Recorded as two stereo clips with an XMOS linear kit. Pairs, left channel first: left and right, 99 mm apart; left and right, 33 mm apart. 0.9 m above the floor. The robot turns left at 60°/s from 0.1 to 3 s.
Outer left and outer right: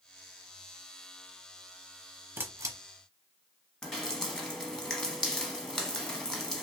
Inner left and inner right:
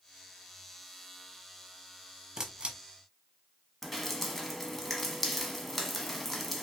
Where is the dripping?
5° left (ahead or behind), 0.8 m.